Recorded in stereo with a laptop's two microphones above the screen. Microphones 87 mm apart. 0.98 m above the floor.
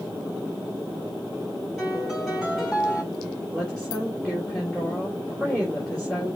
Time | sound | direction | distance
1.8 | a piano | 10° right (ahead or behind) | 3.5 m
3.5 | a woman speaking | 5° right (ahead or behind) | 3 m